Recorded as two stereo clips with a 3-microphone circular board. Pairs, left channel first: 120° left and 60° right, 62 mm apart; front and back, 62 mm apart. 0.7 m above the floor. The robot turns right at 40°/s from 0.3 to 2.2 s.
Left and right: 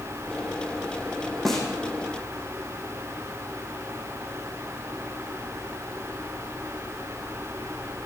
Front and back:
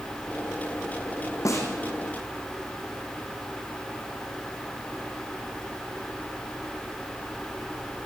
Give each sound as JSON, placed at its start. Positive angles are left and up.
{"t": 1.4, "sound": "a snare drum", "azimuth_deg": 30, "distance_m": 6.5}